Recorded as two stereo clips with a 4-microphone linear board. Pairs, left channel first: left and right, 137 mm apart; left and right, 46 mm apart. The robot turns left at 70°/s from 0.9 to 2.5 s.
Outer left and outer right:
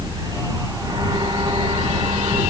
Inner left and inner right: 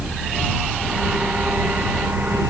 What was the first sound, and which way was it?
Only background noise.